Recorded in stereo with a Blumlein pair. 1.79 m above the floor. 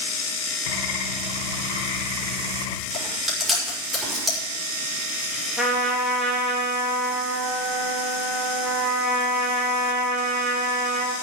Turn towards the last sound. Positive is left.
turn(degrees=-5)